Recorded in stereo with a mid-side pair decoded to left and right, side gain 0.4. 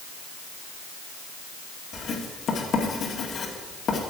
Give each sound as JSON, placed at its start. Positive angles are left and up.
{"t": 1.9, "sound": "writing", "azimuth_deg": 60, "distance_m": 2.0}